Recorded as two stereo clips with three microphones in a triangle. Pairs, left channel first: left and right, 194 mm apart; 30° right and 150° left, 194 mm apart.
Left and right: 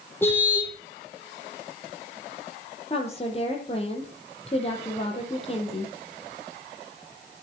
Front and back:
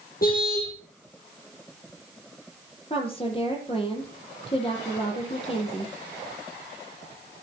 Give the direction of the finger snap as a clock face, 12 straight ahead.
No finger snap in this recording.